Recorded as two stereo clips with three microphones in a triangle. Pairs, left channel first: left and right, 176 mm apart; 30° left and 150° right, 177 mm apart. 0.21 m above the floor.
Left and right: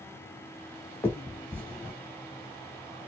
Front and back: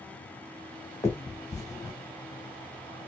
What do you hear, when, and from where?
1.0 s a finger snap: 40° left, 1.0 m